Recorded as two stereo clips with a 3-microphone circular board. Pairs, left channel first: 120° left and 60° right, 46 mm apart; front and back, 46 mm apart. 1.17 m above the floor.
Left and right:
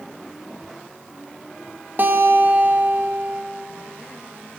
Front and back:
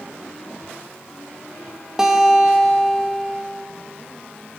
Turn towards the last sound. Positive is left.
turn(degrees=-105)